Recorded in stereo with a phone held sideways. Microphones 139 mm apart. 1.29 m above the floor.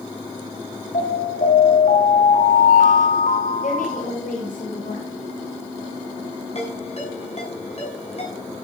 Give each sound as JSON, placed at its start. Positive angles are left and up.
{"t": 0.9, "sound": "an alarm", "side_deg": 90, "distance_m": 6.0}
{"t": 3.6, "sound": "a woman speaking", "side_deg": 85, "distance_m": 6.5}
{"t": 6.5, "sound": "a ringtone", "side_deg": 50, "distance_m": 7.0}